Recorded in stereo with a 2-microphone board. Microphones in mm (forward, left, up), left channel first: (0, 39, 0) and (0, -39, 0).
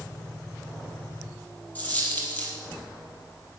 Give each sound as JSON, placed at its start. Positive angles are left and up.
{"t": 1.8, "sound": "a dropped coin", "side_deg": 20, "distance_m": 3.0}